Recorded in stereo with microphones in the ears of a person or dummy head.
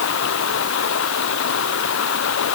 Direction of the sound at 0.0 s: 65° left (ahead or behind).